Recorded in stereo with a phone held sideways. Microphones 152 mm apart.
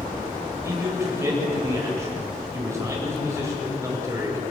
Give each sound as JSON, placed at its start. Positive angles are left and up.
{"t": 0.6, "sound": "a man speaking", "side_deg": -20, "distance_m": 8.5}